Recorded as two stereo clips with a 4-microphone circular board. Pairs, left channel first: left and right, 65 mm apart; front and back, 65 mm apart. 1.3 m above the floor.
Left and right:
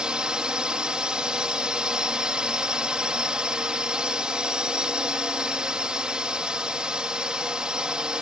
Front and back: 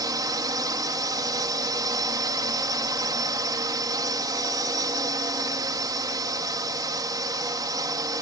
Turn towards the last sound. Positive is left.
turn(degrees=-165)